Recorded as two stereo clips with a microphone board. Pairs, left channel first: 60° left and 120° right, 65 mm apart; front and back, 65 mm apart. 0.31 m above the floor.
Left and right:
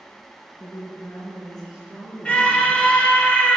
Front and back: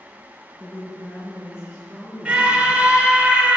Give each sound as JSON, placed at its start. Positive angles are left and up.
{"t": 0.6, "sound": "a woman speaking", "azimuth_deg": 60, "distance_m": 3.5}
{"t": 2.2, "sound": "a scream", "azimuth_deg": 120, "distance_m": 1.4}